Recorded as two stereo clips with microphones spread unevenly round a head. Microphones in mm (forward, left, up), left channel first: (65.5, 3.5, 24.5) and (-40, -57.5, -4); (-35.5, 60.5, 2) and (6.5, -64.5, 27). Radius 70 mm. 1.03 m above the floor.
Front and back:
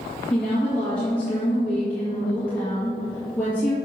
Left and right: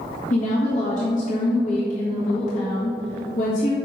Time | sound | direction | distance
0.3 | a woman speaking | 115° left | 1.7 m